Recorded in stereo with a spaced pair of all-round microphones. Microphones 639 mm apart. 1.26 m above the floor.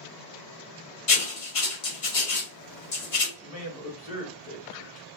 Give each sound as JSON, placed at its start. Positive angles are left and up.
{"t": 1.1, "sound": "writing", "side_deg": 55, "distance_m": 0.9}
{"t": 3.4, "sound": "a man speaking", "side_deg": 10, "distance_m": 1.4}